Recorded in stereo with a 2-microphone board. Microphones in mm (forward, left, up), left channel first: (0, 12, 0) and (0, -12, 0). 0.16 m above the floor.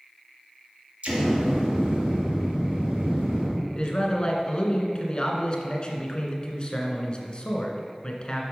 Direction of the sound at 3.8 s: 40° left (ahead or behind).